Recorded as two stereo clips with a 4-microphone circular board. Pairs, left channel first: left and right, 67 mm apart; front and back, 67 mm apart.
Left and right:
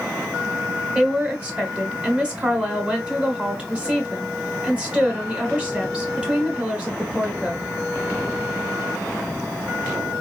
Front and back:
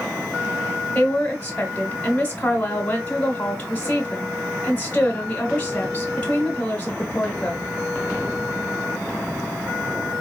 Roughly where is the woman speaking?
Ahead right.